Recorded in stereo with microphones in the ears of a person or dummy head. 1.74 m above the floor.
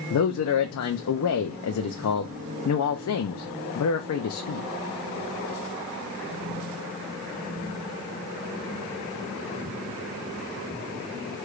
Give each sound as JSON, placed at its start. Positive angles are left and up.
{"t": 0.1, "sound": "a man speaking", "side_deg": 75, "distance_m": 0.6}